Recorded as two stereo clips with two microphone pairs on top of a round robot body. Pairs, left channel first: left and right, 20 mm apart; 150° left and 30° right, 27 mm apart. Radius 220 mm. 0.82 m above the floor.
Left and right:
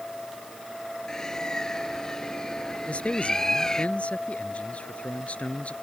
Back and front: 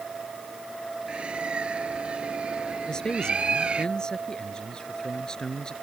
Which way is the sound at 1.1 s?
20° left.